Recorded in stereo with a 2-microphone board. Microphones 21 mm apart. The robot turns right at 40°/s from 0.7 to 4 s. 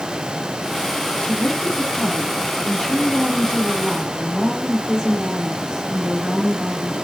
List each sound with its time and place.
1.2 s a woman speaking: 80° left, 4 m; by 6.9 s 170° right, 4 m